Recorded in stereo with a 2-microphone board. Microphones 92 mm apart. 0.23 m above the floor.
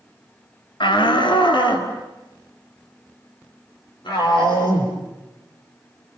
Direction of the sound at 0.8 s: 65° left (ahead or behind).